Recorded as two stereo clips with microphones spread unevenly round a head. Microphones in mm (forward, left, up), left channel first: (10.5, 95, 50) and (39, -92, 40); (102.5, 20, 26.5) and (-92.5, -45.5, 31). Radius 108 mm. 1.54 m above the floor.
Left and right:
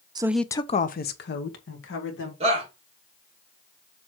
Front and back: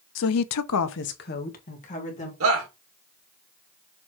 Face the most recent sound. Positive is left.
turn(degrees=-145)